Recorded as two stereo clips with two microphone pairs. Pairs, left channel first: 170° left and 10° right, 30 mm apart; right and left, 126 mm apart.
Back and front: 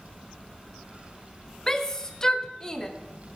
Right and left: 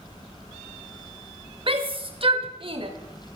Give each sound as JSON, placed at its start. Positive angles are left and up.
{"t": 1.7, "sound": "a shout", "azimuth_deg": 105, "distance_m": 1.3}